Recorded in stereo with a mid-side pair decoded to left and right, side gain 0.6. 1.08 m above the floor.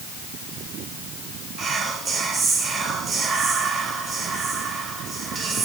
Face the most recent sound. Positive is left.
turn(degrees=-35)